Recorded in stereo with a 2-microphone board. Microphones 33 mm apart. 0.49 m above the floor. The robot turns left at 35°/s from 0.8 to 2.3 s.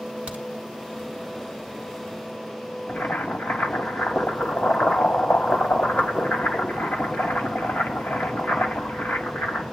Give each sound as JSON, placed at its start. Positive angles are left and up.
{"t": 0.3, "sound": "a crack", "side_deg": -35, "distance_m": 1.6}
{"t": 2.9, "sound": "boiling", "side_deg": 75, "distance_m": 1.7}